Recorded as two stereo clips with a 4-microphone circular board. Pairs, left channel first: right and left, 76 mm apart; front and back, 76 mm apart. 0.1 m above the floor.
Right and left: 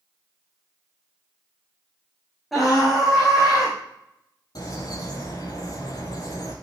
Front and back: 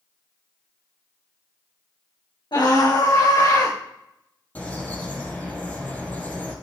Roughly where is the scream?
Ahead.